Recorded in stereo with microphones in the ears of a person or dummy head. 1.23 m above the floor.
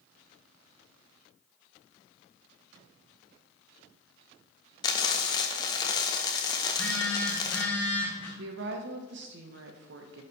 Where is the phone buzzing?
15° left (ahead or behind), 1.3 m.